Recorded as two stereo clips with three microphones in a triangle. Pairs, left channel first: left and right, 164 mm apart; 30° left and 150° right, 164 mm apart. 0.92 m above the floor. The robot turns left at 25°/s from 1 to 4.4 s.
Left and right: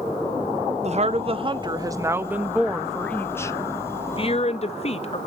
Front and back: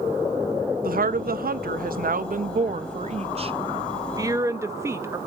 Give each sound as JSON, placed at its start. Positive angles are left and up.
{"t": 0.8, "sound": "a woman speaking", "azimuth_deg": -135, "distance_m": 0.6}